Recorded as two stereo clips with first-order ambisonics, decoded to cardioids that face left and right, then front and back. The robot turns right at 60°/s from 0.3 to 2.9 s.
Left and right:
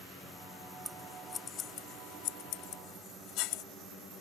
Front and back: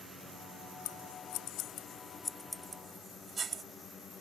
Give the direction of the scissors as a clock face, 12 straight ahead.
12 o'clock.